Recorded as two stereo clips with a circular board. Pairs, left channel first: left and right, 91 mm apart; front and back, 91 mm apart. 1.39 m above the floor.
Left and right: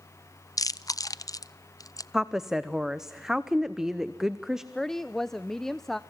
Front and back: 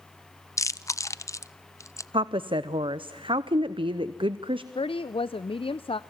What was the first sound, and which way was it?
Chewing, 50° left.